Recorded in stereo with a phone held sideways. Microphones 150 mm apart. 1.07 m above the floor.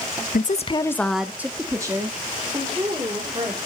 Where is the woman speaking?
70° left (ahead or behind), 0.9 m; by 3.6 s 30° right (ahead or behind), 4.5 m.